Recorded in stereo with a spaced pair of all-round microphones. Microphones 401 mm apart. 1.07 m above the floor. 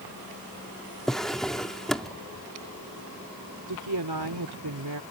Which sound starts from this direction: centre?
A drawer, at 1.1 s.